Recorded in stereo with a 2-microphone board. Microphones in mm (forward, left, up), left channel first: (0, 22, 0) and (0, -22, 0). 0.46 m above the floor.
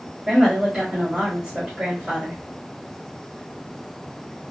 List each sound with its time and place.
0.3 s a woman speaking: 20° right (ahead or behind), 1.5 m